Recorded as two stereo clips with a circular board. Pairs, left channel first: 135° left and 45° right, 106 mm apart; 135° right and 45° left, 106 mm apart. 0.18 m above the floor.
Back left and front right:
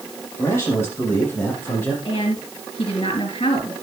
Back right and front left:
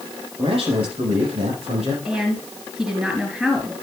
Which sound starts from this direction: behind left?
A woman speaking, at 2.0 s.